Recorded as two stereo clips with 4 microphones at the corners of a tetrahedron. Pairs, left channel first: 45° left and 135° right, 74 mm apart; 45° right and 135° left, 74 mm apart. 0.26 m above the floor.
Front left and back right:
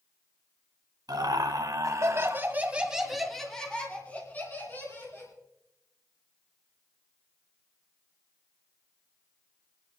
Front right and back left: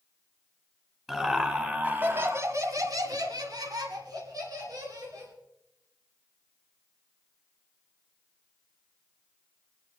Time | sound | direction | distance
1.1 | laughter | 145° right | 2 m